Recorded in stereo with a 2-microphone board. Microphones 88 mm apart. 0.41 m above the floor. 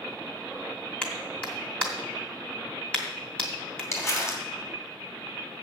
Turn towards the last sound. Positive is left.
turn(degrees=35)  # may be behind; listen again after turning